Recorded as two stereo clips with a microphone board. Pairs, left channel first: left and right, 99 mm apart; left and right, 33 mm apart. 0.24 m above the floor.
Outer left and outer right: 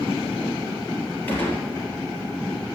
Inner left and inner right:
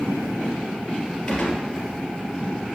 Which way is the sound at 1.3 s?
20° left (ahead or behind).